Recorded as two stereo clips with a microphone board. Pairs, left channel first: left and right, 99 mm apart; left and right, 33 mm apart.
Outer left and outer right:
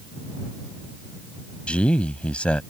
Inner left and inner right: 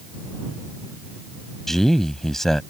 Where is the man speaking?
10° left (ahead or behind).